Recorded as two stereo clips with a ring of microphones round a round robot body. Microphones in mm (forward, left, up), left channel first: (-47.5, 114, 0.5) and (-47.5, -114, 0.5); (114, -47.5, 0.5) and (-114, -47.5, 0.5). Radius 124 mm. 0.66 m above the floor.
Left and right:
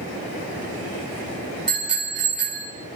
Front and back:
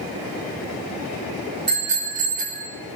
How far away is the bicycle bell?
About 5 m.